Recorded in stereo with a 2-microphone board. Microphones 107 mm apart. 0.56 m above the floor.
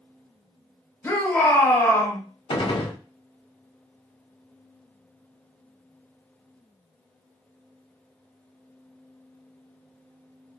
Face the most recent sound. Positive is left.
turn(degrees=50)  # may be behind; listen again after turning